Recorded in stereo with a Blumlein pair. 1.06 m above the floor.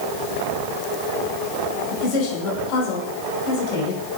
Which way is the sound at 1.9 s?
45° left.